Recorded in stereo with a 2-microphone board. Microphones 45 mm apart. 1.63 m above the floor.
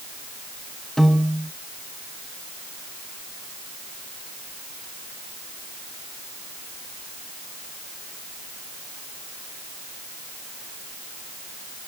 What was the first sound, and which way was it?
A piano, 10° left (ahead or behind).